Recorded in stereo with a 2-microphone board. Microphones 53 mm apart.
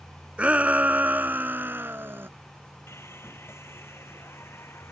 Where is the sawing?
55° left (ahead or behind).